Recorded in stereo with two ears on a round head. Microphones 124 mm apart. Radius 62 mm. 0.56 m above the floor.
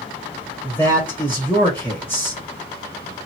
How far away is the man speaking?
About 1.8 m.